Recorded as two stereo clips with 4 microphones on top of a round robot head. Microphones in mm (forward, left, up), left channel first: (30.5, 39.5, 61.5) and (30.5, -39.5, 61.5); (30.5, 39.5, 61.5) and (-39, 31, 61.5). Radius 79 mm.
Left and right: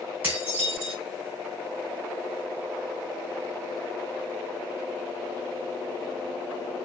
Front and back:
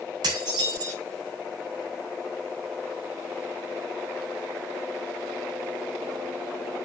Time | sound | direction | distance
0.2 | dishes clattering | 160° right | 3.5 m